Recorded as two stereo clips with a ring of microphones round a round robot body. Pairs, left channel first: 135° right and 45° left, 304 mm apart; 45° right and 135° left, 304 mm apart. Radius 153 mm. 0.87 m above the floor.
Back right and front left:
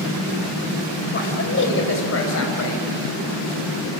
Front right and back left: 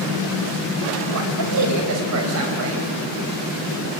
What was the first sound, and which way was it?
A man speaking, 170° left.